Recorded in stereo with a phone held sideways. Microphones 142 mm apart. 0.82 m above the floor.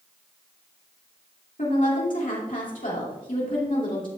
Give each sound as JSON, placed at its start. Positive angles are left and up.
{"t": 1.6, "sound": "a woman speaking", "side_deg": 70, "distance_m": 3.0}